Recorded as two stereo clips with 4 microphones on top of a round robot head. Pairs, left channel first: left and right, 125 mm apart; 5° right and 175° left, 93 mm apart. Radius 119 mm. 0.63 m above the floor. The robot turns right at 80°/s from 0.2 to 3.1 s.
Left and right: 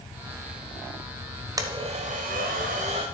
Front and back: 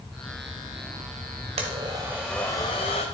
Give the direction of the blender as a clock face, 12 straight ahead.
5 o'clock.